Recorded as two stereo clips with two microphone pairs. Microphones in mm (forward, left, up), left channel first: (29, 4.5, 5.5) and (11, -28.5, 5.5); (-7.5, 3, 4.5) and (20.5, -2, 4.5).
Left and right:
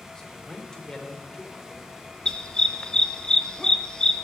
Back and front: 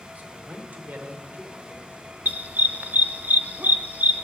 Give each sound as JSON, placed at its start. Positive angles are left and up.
{"t": 0.1, "sound": "a man speaking", "azimuth_deg": -10, "distance_m": 2.5}
{"t": 2.2, "sound": "a dog barking", "azimuth_deg": -10, "distance_m": 0.8}